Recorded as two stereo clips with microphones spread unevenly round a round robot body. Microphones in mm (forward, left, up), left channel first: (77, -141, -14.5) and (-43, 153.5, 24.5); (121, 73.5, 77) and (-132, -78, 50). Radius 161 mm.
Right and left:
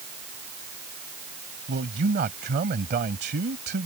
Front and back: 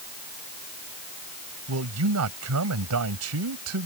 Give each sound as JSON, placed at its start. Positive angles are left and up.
{"t": 1.7, "sound": "a man speaking", "azimuth_deg": 175}